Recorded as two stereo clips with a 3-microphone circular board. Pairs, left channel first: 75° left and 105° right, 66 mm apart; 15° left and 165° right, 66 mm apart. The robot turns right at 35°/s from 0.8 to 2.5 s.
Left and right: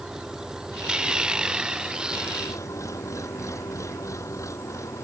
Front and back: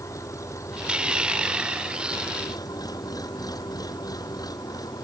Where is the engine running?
25° right; by 5.0 s 35° left.